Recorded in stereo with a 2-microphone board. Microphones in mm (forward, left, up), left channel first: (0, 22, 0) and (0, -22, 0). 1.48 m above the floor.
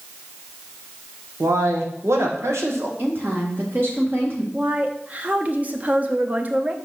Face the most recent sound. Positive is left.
turn(degrees=-35)  # may be behind; listen again after turning